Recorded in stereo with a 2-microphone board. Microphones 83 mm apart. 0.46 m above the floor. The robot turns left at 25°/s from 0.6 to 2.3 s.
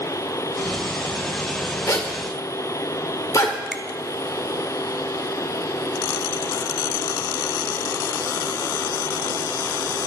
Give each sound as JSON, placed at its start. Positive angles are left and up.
{"t": 1.9, "sound": "a zipper", "side_deg": 40, "distance_m": 1.6}
{"t": 3.7, "sound": "a finger snap", "side_deg": -5, "distance_m": 1.2}